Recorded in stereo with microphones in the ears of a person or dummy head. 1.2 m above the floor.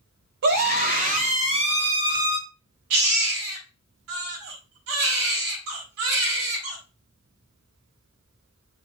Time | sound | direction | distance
0.4 | a scream | 50° right (ahead or behind) | 1.8 m
2.9 | a baby crying | 75° right (ahead or behind) | 3.5 m